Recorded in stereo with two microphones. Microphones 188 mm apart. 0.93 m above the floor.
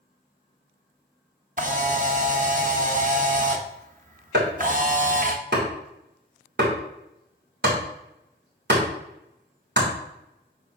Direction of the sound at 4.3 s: 65° right (ahead or behind).